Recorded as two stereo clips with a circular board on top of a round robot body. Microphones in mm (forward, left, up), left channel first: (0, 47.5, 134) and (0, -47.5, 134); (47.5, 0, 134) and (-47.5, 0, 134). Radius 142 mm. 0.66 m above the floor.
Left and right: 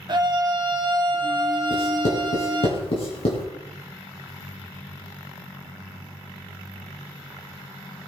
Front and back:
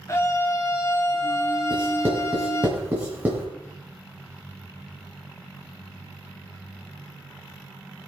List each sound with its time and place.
0.1 s a scream: 55° right, 2.5 m
1.7 s writing: 105° left, 4 m